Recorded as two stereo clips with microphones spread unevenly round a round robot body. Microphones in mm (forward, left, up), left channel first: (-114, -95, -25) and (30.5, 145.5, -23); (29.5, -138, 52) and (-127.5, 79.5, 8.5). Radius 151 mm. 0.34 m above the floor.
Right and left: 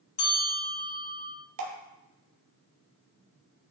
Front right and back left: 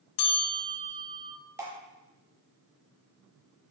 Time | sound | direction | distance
0.2 | a bell | 55° right | 1.0 m
1.6 | dripping | 50° left | 0.5 m